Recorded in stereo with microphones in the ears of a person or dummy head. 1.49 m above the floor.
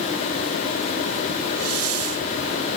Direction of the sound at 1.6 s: 85° right.